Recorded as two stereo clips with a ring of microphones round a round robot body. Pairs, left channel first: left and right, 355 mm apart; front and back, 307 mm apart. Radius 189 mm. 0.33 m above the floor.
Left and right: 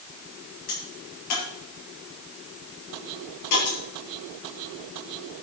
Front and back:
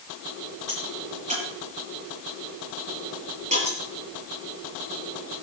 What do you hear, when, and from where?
0.7 s a crack: 110° left, 7 m